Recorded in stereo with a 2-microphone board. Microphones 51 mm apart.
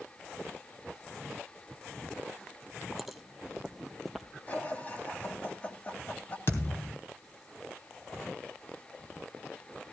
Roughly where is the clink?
No clink in this recording.